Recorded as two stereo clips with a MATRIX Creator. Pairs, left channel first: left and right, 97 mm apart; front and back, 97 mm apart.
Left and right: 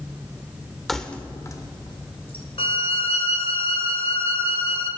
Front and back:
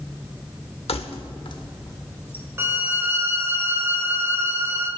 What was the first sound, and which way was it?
Keys jangling, straight ahead.